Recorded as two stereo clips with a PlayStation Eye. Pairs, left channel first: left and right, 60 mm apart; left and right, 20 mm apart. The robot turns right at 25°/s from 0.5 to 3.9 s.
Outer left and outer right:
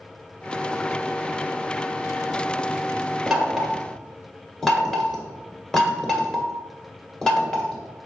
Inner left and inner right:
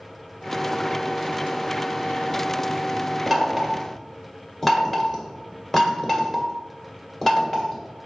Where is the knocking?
5° right (ahead or behind), 1.8 m; by 7.8 s 10° left (ahead or behind), 1.8 m.